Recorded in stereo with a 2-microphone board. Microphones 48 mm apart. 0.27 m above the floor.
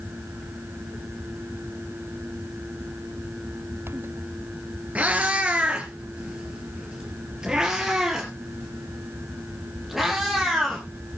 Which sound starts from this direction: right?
A cat meowing, at 5.0 s.